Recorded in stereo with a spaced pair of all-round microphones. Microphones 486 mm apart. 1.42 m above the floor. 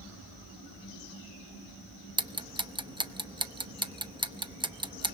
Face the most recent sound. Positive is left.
turn(degrees=-10)  # may be behind; listen again after turning